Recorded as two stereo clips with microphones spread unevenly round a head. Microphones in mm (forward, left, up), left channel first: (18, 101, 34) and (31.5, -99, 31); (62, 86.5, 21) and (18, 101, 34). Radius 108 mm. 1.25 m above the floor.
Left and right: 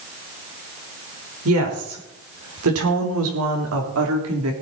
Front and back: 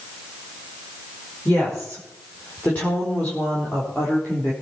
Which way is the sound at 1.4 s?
95° right.